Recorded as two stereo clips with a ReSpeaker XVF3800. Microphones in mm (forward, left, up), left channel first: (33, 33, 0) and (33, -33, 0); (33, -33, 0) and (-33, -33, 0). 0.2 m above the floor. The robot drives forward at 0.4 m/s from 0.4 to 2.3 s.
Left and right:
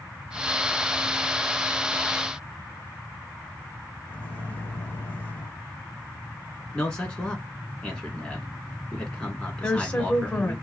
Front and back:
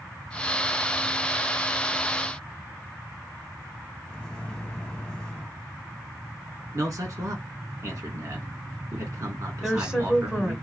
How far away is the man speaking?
About 1.9 m.